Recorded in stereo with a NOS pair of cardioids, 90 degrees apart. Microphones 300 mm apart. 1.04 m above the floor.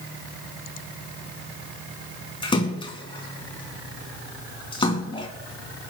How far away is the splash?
About 3.5 m.